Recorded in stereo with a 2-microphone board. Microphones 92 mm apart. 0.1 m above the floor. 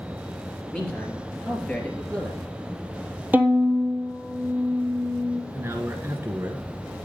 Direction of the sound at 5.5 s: 25° right (ahead or behind).